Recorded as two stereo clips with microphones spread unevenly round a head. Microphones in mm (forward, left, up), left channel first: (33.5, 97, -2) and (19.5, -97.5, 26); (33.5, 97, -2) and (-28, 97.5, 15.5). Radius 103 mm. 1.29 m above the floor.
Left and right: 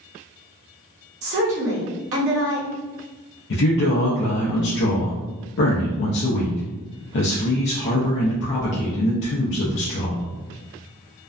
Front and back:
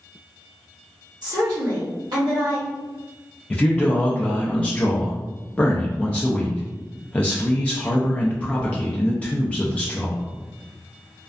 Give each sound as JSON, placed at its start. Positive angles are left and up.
{"t": 1.2, "sound": "a woman speaking", "azimuth_deg": -120, "distance_m": 1.1}
{"t": 3.5, "sound": "a man speaking", "azimuth_deg": 65, "distance_m": 0.5}